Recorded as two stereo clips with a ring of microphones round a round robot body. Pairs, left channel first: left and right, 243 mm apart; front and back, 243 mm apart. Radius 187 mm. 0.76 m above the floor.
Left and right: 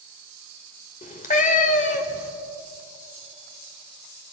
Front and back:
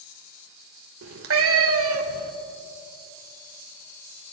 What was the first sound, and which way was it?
A cat meowing, 150° left.